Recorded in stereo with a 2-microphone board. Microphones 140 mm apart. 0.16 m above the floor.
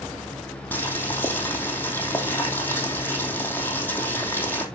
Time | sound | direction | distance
0.7 | boiling | 15° left (ahead or behind) | 3 m